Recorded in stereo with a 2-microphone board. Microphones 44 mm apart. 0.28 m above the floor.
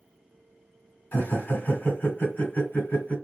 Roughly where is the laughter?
Left.